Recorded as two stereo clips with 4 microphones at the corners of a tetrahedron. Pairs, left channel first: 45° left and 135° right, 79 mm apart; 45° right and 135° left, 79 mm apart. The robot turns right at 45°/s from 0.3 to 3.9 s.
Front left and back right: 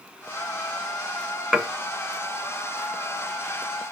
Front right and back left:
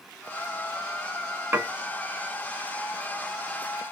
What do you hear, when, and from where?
1.5 s dishes clattering: 140° left, 0.7 m; by 1.7 s 145° left, 0.7 m